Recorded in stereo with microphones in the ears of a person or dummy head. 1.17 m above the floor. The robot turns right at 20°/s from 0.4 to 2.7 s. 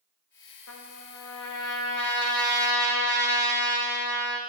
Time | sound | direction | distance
0.7 | a trumpet | 85° left | 1.3 m